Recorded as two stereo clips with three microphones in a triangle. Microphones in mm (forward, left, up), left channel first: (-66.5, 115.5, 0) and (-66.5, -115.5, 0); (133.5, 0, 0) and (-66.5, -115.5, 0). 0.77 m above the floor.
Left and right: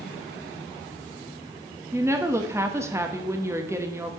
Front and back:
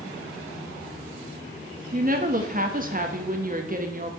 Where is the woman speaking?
160° right, 1.1 m.